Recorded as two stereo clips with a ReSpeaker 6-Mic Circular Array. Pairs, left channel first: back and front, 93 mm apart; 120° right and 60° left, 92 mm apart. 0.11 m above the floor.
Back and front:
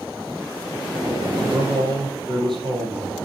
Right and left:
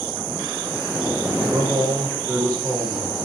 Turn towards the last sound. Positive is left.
turn(degrees=20)